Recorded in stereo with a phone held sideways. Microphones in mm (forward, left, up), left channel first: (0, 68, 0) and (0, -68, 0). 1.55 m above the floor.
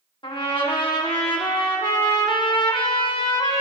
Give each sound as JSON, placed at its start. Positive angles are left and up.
{"t": 0.2, "sound": "a trumpet", "side_deg": 35, "distance_m": 1.4}